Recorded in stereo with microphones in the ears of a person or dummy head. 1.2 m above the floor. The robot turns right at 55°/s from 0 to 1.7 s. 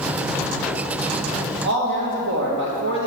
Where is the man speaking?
55° right (ahead or behind), 1.2 m.